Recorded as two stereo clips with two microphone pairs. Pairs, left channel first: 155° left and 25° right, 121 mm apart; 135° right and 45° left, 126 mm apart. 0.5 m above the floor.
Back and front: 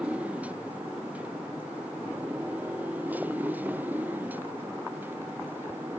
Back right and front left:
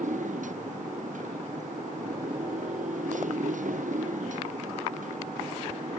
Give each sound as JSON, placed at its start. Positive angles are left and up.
{"t": 0.0, "sound": "a motorcycle", "azimuth_deg": 55}